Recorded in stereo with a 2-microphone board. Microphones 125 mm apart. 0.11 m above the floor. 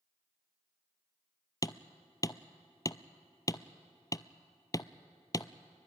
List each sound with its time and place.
1.6 s hammering: 30° left (ahead or behind), 0.6 m